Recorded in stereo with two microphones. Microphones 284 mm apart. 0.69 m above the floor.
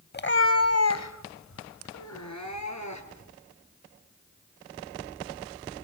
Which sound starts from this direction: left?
A cat meowing, at 0.1 s.